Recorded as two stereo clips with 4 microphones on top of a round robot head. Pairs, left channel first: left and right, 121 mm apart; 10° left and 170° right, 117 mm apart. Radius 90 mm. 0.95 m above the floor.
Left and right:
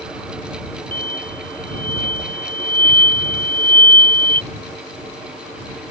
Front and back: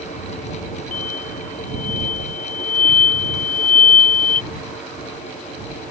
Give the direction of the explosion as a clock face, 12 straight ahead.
12 o'clock.